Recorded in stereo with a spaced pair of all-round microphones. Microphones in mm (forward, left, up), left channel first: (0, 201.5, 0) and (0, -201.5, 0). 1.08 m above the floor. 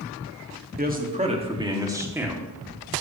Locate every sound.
0.8 s a man speaking: 25° right (ahead or behind), 1.9 m; by 2.5 s 5° right (ahead or behind), 2.5 m